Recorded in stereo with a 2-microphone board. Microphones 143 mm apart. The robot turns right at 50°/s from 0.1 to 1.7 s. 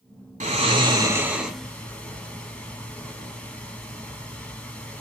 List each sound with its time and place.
0.4 s snoring: 55° right (ahead or behind), 1.0 m; by 5.0 s 10° left (ahead or behind), 1.0 m